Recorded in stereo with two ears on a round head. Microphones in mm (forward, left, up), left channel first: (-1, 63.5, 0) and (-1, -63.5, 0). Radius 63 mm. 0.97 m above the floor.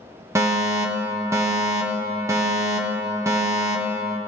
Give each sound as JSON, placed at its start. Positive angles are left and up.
{"t": 0.3, "sound": "a fire alarm", "side_deg": -20, "distance_m": 1.1}